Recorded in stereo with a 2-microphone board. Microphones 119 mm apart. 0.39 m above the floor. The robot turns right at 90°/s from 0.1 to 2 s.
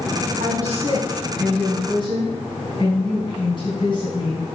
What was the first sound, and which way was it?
A woman speaking, 95° right.